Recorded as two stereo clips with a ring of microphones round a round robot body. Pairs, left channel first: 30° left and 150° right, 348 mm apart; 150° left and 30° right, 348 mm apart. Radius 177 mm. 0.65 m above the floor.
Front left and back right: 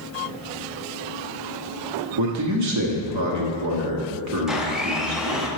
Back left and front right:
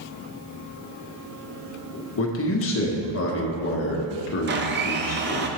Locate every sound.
2.2 s a man speaking: 170° right, 1.1 m
4.5 s a blender: 65° right, 0.6 m